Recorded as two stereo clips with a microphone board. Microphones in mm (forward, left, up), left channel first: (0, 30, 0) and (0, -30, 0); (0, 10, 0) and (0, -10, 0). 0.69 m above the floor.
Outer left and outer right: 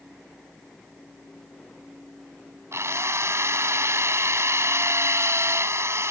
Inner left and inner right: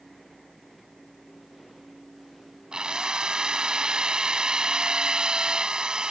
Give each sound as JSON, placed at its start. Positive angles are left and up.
{"t": 2.7, "sound": "a drill", "side_deg": -50}